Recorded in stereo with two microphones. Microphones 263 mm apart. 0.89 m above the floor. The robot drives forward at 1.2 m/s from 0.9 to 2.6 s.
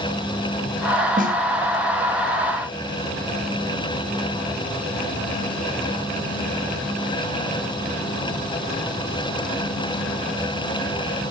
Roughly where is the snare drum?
Right.